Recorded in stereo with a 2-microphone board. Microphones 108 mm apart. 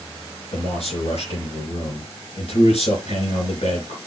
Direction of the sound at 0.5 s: 70° left (ahead or behind).